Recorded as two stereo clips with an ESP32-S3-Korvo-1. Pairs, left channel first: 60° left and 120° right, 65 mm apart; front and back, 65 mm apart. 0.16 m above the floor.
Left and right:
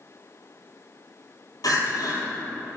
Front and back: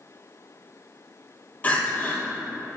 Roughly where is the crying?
Ahead left.